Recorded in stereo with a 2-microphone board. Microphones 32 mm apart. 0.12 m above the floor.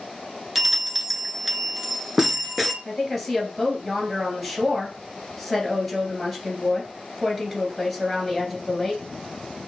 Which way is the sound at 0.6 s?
5° right (ahead or behind).